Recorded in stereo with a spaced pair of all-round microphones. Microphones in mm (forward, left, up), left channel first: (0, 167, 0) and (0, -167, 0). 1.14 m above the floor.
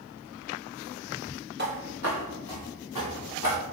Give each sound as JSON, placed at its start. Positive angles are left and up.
{"t": 1.6, "sound": "footsteps", "side_deg": -30, "distance_m": 1.3}